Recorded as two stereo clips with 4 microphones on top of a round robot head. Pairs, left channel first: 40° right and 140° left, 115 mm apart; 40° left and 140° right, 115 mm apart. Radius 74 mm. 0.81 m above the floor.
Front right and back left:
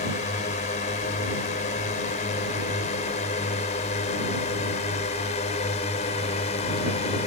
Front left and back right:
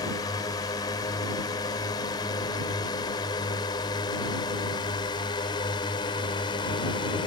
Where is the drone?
20° right; by 7.3 s 10° right.